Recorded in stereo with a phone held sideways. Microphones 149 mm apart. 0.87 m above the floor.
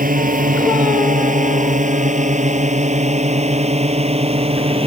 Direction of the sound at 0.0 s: 65° right (ahead or behind).